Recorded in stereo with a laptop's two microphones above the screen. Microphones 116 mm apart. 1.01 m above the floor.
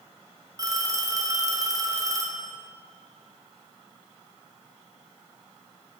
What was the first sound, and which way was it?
A phone ringing, 30° right (ahead or behind).